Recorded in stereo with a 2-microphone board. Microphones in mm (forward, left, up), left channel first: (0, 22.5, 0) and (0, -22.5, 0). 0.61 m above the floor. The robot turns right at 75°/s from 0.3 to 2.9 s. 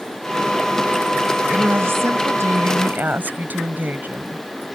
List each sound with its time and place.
1.5 s a woman speaking: 145° right; by 4.8 s 40° right